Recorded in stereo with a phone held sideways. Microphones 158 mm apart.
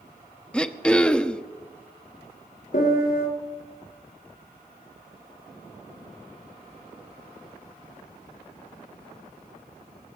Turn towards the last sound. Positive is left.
turn(degrees=70)  # may be behind; listen again after turning